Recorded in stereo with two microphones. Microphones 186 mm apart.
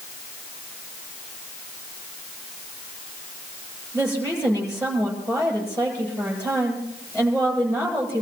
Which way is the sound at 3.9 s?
10° left (ahead or behind).